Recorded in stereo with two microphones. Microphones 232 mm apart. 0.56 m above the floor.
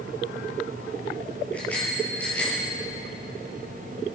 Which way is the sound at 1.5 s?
5° left (ahead or behind).